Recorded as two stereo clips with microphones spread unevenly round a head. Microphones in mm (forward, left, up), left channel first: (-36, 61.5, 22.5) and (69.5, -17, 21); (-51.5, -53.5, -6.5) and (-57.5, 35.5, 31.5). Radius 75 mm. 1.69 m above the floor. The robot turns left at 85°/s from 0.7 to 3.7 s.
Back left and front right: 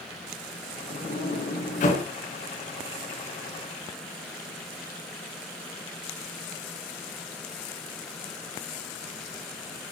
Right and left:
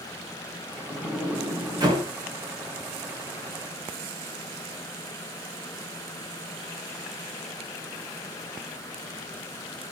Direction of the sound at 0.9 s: 165° right.